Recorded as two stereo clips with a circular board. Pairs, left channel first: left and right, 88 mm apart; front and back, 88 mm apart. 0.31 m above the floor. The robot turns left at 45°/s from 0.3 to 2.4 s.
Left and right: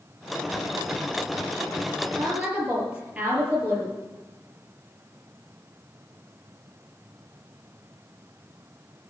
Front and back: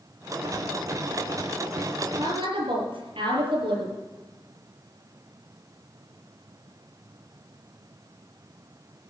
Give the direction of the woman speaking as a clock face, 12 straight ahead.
5 o'clock.